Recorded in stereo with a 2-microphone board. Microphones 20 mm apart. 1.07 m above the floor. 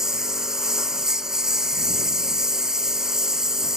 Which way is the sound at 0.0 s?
30° right (ahead or behind).